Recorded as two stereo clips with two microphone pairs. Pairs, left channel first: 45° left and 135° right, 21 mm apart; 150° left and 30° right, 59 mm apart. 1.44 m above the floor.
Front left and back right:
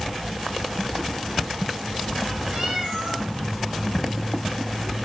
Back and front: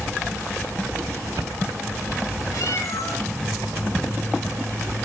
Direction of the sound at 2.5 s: Straight behind.